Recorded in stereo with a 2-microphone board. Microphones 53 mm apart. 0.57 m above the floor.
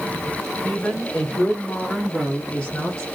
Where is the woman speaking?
15° left (ahead or behind), 2.0 m; by 3.0 s 20° left (ahead or behind), 1.2 m.